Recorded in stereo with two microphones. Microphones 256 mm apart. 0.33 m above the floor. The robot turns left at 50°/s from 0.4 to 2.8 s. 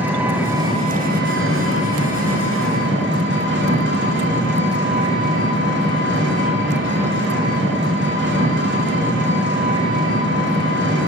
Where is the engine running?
5° right, 1.6 m; by 11.1 s 125° right, 1.6 m.